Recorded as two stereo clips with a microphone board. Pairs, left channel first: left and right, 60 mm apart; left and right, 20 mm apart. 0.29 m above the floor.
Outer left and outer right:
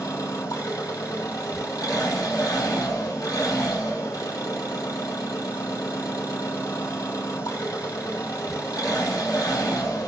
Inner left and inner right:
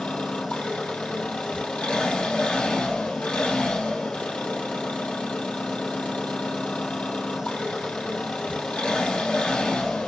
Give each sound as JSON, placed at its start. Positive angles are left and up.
{"t": 0.0, "sound": "an engine running", "side_deg": 80, "distance_m": 4.0}